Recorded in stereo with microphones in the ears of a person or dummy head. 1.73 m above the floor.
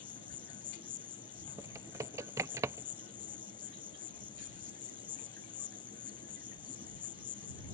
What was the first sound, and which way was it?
An insect, 20° left (ahead or behind).